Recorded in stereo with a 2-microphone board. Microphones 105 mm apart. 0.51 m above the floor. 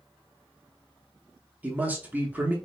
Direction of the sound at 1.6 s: 15° right (ahead or behind).